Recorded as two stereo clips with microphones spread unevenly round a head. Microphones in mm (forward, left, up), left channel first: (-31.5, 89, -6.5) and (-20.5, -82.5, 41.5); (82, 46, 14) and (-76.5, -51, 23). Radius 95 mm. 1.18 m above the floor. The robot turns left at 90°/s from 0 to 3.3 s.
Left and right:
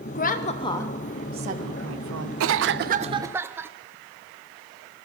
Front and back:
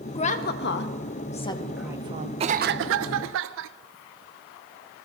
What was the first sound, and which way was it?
A woman speaking, 90° left.